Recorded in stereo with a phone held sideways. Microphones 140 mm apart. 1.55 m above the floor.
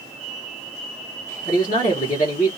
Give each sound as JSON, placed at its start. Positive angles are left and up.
{"t": 1.4, "sound": "a man speaking", "side_deg": 65, "distance_m": 1.2}